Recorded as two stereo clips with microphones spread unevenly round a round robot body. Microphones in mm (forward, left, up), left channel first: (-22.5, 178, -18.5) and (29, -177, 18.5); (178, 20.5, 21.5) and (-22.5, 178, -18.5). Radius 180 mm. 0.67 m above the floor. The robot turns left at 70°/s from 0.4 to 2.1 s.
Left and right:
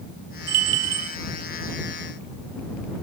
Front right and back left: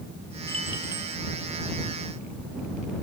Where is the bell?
125° right; by 1.2 s 175° right.